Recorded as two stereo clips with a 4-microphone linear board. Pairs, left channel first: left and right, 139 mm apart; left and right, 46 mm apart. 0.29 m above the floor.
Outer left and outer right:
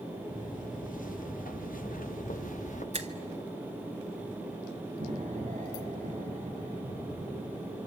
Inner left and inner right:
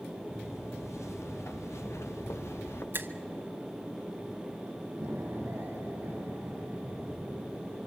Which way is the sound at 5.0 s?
65° right (ahead or behind).